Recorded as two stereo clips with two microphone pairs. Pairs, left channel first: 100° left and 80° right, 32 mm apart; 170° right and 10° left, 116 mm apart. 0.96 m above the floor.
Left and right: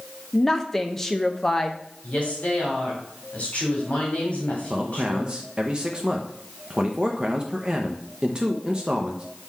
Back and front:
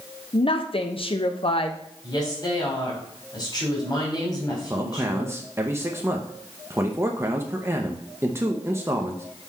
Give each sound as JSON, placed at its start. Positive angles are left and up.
{"t": 0.3, "sound": "a woman speaking", "azimuth_deg": 170, "distance_m": 0.6}
{"t": 2.0, "sound": "a woman speaking", "azimuth_deg": 140, "distance_m": 3.0}
{"t": 4.7, "sound": "a man speaking", "azimuth_deg": -35, "distance_m": 0.6}